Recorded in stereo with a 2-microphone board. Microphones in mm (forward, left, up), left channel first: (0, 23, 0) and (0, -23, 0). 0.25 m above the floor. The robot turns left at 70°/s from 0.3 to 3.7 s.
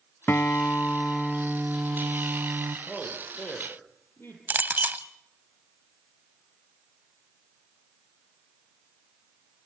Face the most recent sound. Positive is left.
turn(degrees=-40)  # may be behind; listen again after turning